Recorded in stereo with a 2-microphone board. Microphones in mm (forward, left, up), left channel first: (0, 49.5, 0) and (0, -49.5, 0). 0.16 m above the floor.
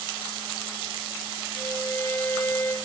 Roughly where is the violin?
Left.